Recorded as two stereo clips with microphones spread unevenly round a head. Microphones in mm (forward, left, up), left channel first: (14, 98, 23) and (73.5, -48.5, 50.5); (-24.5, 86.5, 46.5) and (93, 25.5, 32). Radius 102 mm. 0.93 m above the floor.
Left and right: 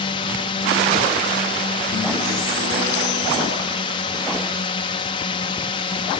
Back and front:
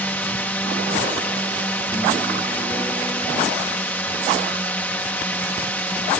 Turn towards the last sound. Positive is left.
turn(degrees=75)